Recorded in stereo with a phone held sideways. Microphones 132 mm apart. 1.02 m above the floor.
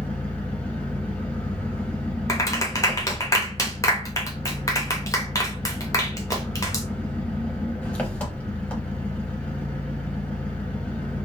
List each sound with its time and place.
0.0 s an engine running: 10° left (ahead or behind), 1.0 m
2.3 s a clap: 25° left (ahead or behind), 0.7 m